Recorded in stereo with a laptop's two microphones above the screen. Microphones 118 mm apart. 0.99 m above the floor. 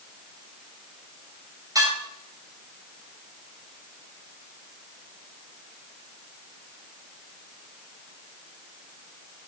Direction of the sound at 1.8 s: 30° right (ahead or behind).